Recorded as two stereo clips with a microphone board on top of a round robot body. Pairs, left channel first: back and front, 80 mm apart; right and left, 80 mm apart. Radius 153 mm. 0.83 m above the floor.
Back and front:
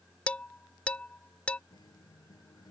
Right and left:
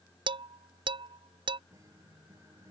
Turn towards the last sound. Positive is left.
turn(degrees=140)